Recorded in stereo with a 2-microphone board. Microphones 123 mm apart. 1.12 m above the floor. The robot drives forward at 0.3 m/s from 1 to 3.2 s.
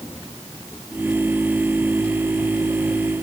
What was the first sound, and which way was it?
Only background noise.